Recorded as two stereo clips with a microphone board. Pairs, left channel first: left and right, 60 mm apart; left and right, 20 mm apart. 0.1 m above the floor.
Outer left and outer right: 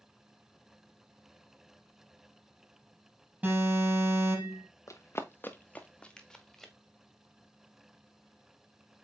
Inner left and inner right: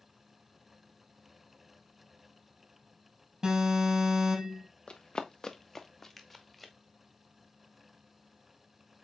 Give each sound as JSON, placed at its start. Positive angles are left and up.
{"t": 3.4, "sound": "an alarm", "side_deg": -30, "distance_m": 4.0}
{"t": 4.9, "sound": "running footsteps", "side_deg": 60, "distance_m": 1.1}